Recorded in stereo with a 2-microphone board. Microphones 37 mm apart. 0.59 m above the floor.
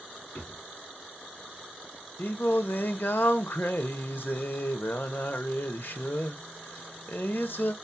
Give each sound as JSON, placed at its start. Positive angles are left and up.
{"t": 0.3, "sound": "a drawer", "side_deg": 75, "distance_m": 1.3}
{"t": 2.2, "sound": "singing", "side_deg": 65, "distance_m": 0.5}